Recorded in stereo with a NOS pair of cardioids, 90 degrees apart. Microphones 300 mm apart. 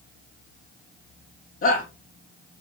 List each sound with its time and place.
1.6 s a shout: 45° left, 4 m